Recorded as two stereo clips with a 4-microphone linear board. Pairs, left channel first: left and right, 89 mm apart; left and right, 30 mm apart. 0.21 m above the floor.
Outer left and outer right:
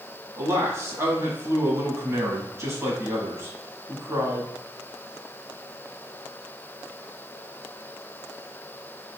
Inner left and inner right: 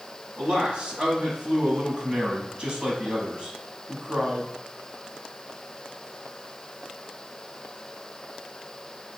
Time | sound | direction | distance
0.4 | a man speaking | 35° right (ahead or behind) | 1.2 m